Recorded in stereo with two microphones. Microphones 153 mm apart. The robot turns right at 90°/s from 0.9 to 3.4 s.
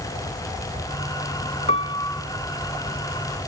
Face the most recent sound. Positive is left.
turn(degrees=-85)